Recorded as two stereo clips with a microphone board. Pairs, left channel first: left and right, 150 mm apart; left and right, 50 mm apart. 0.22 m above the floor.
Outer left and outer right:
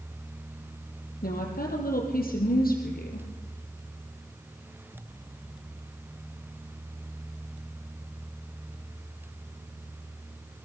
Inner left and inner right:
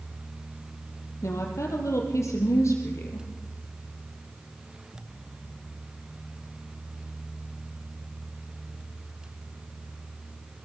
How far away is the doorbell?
No doorbell in this recording.